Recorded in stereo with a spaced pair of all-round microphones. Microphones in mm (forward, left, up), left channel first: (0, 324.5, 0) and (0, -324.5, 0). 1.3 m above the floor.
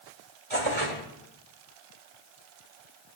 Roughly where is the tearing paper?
Right.